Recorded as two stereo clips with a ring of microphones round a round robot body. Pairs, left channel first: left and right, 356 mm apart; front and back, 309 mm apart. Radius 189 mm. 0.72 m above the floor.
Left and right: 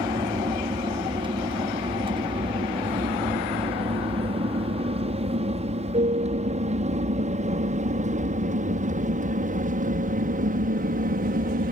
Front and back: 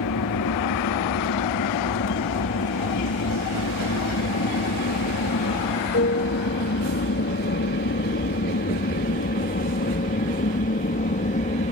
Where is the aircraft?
15° right; by 11.7 s 45° right.